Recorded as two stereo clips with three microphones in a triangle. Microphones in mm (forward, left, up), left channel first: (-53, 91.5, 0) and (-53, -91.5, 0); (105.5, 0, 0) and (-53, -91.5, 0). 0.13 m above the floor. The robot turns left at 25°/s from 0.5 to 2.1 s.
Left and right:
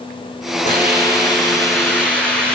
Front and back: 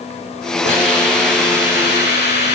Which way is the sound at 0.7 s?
45° left.